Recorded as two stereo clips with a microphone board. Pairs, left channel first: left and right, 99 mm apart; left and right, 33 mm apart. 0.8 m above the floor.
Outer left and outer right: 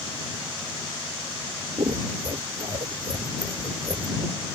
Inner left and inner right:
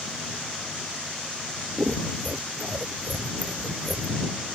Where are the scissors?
60° right (ahead or behind).